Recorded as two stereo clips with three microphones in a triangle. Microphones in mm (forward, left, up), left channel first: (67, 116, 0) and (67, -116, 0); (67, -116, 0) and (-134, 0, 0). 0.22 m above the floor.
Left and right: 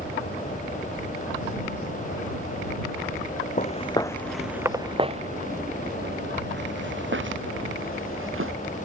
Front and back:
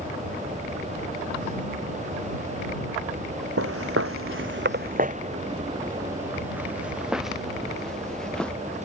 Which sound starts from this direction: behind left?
Footsteps, at 3.6 s.